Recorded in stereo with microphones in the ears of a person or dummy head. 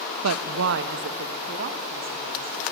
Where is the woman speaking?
80° right, 0.6 m; by 2.6 s 45° right (ahead or behind), 2.5 m.